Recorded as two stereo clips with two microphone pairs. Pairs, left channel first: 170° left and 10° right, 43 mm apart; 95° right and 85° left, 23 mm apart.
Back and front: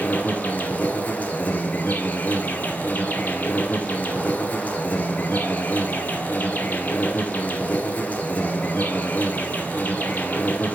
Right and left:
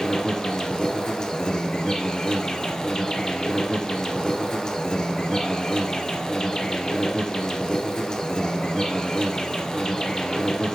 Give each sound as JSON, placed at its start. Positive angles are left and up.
{"t": 0.0, "sound": "an insect", "azimuth_deg": -140, "distance_m": 0.8}